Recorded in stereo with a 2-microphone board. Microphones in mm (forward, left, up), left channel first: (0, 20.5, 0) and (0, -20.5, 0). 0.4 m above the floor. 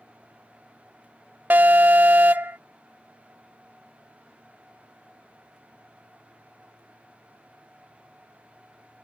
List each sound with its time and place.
1.5 s an alarm: 50° right (ahead or behind)